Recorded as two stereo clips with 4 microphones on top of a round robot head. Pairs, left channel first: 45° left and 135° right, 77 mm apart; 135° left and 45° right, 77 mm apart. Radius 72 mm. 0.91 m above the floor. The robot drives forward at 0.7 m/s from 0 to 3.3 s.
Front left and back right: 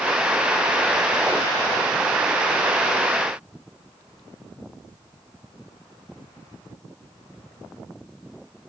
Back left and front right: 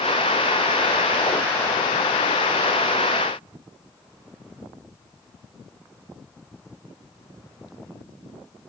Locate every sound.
Only background noise.